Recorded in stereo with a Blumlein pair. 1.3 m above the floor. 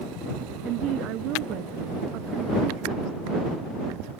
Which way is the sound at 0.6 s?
35° right.